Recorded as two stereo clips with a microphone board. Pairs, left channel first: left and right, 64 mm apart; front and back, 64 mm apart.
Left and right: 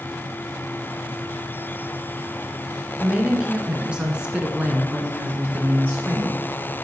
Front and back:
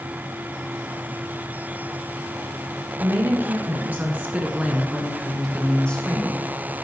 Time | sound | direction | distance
3.0 | a woman speaking | 165° right | 1.9 m